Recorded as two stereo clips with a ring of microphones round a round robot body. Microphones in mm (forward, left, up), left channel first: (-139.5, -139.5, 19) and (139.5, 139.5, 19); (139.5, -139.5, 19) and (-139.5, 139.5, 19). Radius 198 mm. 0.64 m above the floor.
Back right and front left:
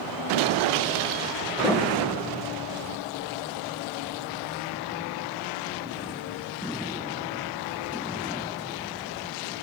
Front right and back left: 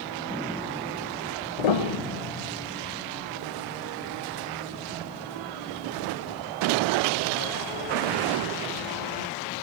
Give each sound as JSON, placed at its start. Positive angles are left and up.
{"t": 1.6, "sound": "a piano", "azimuth_deg": -55, "distance_m": 1.9}